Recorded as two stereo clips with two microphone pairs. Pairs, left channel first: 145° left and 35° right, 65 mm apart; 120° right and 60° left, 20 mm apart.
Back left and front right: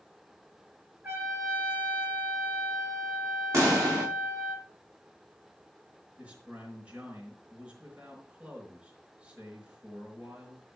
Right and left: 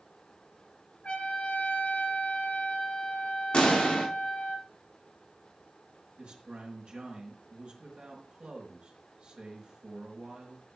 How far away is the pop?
About 5.5 m.